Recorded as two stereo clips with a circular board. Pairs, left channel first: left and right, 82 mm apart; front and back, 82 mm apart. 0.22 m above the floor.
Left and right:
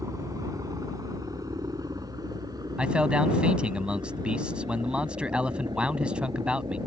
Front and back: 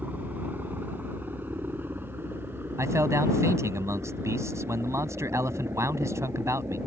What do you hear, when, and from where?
0.0 s a helicopter: 120° right
2.8 s a man speaking: 160° right